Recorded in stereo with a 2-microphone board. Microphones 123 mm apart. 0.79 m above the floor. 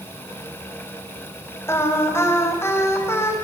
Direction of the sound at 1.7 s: 20° left (ahead or behind).